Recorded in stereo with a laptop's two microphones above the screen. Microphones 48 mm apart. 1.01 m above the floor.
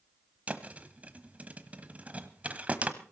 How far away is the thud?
About 1.1 m.